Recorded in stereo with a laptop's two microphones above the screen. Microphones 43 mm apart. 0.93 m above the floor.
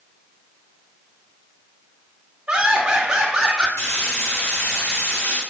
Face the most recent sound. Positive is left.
turn(degrees=75)  # may be behind; listen again after turning